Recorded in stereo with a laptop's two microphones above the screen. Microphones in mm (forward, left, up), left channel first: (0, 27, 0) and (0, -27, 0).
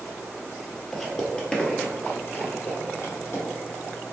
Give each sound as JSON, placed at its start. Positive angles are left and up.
{"t": 0.9, "sound": "footsteps", "side_deg": 5, "distance_m": 1.3}